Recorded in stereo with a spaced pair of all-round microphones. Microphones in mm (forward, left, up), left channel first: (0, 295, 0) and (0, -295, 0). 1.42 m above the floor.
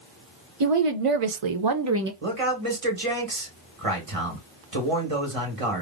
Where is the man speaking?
75° right (ahead or behind), 1.5 m.